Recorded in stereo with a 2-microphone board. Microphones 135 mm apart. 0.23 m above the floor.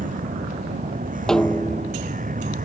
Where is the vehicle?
85° right.